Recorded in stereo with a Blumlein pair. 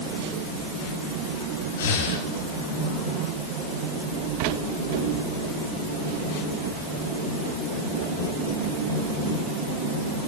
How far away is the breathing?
About 2.5 m.